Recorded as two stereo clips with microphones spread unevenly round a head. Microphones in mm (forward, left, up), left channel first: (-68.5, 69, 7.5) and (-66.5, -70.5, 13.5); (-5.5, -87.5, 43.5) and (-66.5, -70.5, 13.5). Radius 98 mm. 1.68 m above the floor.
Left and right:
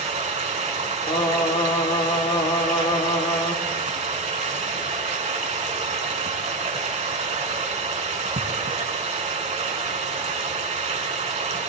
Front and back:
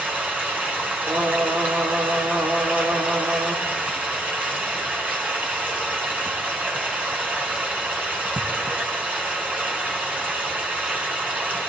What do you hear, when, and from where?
0.0 s running water: 115° right, 4.5 m
1.1 s singing: 60° left, 1.4 m